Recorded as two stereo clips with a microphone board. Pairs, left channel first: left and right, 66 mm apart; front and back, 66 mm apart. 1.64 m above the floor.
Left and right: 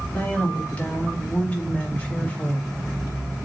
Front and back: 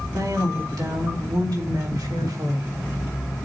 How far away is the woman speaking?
About 4 m.